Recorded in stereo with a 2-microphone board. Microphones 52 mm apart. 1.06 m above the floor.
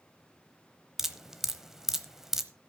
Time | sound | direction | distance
1.0 | dripping | 10° right (ahead or behind) | 0.9 m